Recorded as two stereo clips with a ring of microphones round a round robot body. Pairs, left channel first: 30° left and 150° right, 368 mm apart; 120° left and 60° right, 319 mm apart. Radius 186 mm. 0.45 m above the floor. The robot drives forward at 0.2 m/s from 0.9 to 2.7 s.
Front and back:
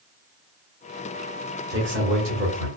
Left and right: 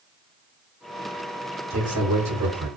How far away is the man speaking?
About 1.1 m.